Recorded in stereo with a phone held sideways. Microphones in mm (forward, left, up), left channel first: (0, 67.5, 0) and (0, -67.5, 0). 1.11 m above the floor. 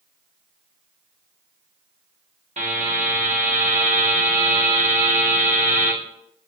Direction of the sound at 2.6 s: 60° right (ahead or behind).